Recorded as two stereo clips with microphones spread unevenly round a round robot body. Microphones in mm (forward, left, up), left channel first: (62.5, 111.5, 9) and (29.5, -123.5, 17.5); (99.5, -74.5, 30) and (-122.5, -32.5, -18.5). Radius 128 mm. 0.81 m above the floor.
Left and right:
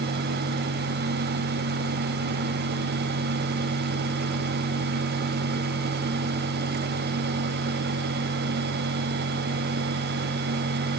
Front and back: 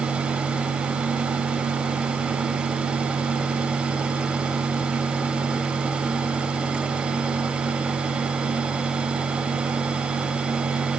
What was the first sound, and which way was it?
Only background noise.